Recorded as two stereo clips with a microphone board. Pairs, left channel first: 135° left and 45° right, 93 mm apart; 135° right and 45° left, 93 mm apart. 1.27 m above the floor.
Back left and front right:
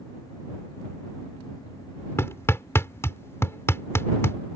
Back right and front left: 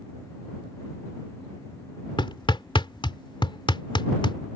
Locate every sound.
2.2 s hammering: 165° right